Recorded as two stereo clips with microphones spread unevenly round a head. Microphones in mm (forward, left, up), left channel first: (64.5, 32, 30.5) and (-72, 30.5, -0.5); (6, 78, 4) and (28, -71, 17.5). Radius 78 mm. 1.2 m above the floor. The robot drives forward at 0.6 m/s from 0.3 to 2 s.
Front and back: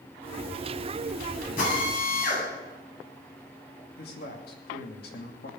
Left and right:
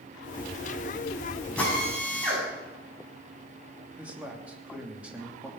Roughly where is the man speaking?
Ahead.